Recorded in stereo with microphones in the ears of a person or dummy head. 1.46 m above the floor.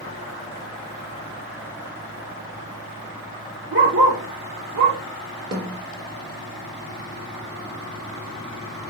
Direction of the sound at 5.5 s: 25° right (ahead or behind).